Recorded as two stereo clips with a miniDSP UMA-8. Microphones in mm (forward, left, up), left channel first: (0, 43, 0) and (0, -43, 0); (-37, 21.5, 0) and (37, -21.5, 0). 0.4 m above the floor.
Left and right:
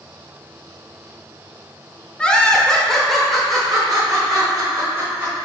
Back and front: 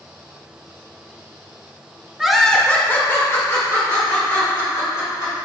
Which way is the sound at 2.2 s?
40° left.